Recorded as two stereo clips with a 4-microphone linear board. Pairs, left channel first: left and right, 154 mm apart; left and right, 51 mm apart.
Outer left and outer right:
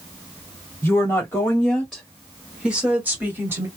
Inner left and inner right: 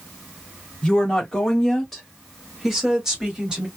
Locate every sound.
0.8 s a woman speaking: 15° left (ahead or behind), 1.7 m; by 3.7 s 15° right (ahead or behind), 1.9 m